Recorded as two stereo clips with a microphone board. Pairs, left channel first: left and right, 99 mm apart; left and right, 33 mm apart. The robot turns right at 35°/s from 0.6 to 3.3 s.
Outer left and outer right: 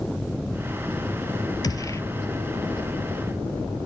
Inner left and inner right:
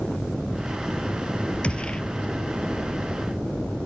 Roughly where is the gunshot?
Left.